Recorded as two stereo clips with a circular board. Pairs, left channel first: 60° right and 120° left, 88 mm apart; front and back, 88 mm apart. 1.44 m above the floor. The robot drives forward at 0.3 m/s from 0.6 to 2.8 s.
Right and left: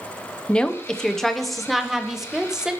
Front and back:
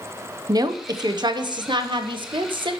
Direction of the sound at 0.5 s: 135° right.